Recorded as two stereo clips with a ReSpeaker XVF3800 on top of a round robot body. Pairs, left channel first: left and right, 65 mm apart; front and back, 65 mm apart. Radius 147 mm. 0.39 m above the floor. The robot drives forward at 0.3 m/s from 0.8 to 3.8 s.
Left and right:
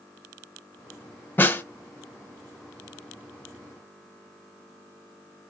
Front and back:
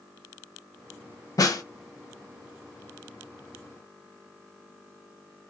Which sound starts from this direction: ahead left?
A snare drum, at 1.4 s.